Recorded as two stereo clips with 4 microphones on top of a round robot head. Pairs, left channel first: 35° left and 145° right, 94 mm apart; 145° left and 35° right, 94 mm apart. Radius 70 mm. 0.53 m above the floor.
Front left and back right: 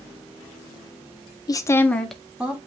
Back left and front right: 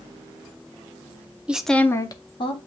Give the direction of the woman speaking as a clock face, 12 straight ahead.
11 o'clock.